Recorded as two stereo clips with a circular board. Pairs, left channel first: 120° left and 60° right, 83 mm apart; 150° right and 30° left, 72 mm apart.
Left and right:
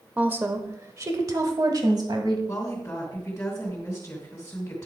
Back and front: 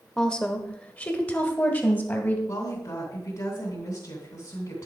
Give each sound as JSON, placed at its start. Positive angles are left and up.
{"t": 0.2, "sound": "a woman speaking", "azimuth_deg": -85, "distance_m": 0.9}
{"t": 2.5, "sound": "a woman speaking", "azimuth_deg": -175, "distance_m": 2.5}